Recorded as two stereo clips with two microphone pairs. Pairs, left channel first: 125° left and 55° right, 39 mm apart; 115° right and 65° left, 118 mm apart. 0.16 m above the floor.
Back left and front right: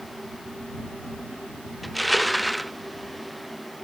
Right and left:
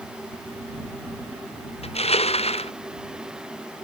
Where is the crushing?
145° right.